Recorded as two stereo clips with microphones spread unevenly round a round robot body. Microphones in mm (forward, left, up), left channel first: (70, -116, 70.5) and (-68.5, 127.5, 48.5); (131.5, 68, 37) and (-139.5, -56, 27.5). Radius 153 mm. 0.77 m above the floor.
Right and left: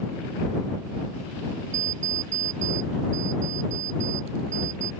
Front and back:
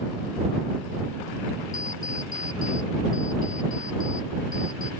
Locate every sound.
1.7 s an alarm clock: 90° left